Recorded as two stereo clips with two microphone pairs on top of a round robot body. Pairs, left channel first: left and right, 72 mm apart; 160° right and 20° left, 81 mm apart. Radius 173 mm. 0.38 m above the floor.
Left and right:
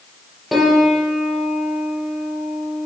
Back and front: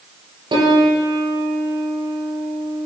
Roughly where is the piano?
Ahead.